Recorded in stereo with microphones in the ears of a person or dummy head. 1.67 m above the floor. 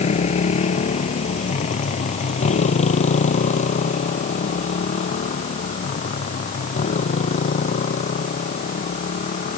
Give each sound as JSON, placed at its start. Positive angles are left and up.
{"t": 0.0, "sound": "a motorcycle", "side_deg": 40}